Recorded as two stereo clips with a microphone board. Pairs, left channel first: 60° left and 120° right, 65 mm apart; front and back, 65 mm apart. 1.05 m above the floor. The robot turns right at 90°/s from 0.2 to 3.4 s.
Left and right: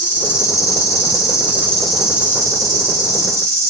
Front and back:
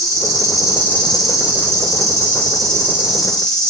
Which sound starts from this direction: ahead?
An insect, at 0.0 s.